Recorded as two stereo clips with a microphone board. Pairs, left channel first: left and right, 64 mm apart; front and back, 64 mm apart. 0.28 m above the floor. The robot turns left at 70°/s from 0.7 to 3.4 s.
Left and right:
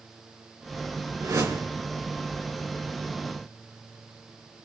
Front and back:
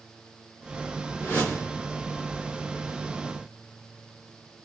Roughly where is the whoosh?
Ahead right.